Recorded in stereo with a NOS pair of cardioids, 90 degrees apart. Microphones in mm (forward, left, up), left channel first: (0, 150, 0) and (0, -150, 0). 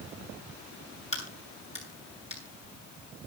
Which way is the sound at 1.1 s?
20° left.